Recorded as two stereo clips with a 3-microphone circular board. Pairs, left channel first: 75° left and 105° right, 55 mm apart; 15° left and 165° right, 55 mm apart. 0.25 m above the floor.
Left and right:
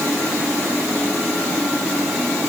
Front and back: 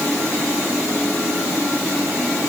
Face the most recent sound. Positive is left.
No sound to turn to.